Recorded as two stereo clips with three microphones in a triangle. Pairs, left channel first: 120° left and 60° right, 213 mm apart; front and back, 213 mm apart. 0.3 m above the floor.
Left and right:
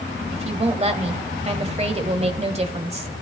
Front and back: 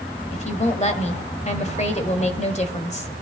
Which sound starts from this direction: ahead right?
A woman speaking, at 0.3 s.